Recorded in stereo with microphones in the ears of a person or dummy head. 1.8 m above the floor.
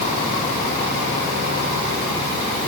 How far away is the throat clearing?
I don't hear throat clearing.